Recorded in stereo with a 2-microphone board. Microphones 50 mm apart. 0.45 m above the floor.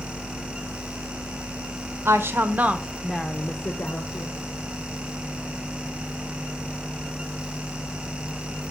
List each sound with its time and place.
2.0 s a woman speaking: 55° right (ahead or behind), 1.2 m; by 4.3 s 50° left (ahead or behind), 1.6 m